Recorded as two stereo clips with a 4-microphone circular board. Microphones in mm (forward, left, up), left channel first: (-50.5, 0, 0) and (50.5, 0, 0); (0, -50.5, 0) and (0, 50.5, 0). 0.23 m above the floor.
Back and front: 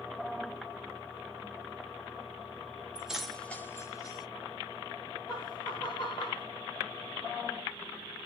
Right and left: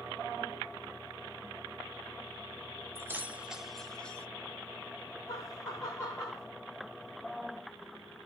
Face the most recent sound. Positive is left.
turn(degrees=-145)